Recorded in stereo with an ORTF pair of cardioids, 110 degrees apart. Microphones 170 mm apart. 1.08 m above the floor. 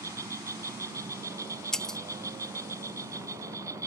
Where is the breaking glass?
5° left.